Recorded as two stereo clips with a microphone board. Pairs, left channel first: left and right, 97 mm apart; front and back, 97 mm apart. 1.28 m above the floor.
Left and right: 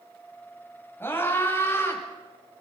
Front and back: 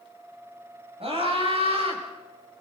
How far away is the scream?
About 8 m.